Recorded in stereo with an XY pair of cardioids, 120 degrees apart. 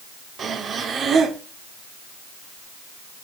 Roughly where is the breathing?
Ahead right.